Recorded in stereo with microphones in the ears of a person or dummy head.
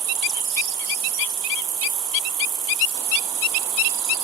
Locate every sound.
0.0 s an insect: 20° right (ahead or behind)